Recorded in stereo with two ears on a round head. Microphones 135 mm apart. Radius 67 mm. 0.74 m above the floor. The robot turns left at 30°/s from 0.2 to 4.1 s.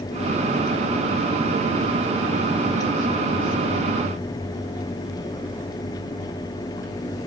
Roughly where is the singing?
I don't hear singing.